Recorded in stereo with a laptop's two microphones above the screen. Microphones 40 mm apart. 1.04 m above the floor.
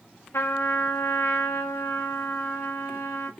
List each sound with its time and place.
0.3 s a trumpet: 75° left (ahead or behind), 1.7 m